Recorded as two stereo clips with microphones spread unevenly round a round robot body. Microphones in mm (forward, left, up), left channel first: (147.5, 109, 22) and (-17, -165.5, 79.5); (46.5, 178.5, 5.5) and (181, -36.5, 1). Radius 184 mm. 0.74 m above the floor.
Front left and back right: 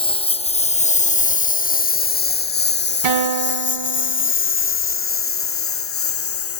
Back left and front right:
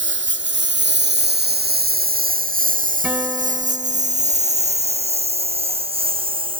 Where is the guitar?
145° right.